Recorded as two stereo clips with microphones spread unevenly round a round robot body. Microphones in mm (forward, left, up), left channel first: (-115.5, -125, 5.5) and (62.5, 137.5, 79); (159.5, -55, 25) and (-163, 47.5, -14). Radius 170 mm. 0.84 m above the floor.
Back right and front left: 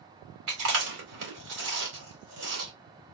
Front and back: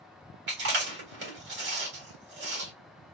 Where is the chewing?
105° left, 2.5 m.